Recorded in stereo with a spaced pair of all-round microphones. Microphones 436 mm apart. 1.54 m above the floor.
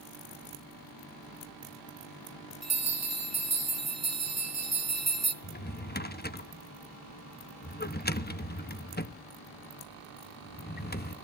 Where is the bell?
35° right (ahead or behind), 2 m.